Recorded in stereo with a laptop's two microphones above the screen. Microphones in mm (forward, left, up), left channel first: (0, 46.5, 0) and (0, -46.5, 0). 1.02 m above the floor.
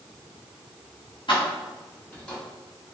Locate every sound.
1.3 s keys jangling: 60° left (ahead or behind), 1.1 m; by 2.4 s 10° left (ahead or behind), 1.7 m